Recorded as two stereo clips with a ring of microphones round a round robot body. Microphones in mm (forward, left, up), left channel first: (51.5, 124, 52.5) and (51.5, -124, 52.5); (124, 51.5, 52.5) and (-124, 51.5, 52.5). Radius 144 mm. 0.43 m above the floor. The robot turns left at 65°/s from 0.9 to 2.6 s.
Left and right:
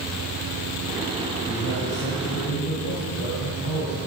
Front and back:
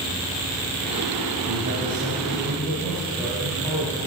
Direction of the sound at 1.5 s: 155° left.